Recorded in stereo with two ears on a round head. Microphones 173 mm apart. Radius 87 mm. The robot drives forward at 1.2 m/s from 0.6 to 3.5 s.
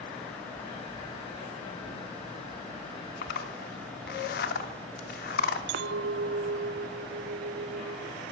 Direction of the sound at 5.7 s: 60° right (ahead or behind).